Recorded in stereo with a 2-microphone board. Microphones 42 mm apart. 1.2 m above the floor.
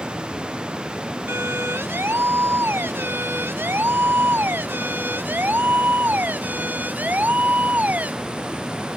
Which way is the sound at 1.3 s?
75° right (ahead or behind).